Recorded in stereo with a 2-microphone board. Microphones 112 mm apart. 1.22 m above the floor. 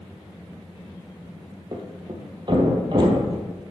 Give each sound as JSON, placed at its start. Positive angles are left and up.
{"t": 1.7, "sound": "a thud", "side_deg": -45, "distance_m": 1.8}